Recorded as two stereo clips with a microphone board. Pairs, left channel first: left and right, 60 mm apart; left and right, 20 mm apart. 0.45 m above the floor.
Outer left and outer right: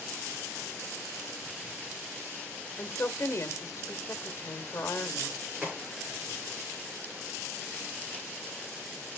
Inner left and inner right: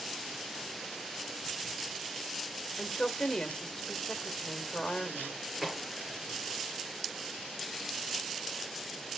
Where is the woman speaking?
50° left (ahead or behind), 1.6 m.